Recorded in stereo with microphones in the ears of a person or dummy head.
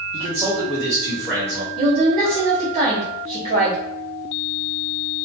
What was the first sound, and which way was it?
A man speaking, 20° right (ahead or behind).